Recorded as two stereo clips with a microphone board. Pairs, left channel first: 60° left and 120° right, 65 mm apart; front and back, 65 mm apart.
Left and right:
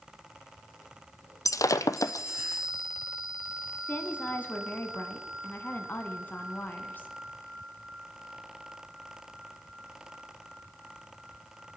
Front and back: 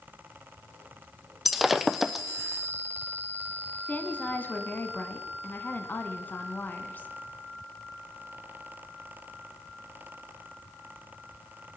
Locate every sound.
1.4 s breaking glass: 95° left, 0.6 m
3.9 s a woman speaking: 35° left, 1.5 m